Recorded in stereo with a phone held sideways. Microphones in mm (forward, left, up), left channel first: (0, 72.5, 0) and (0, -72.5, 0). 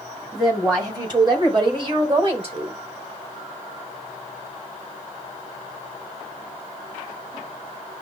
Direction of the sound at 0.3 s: 30° right (ahead or behind).